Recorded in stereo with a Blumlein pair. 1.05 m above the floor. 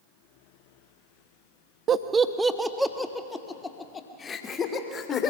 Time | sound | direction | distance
1.9 | laughter | 25° right | 1.1 m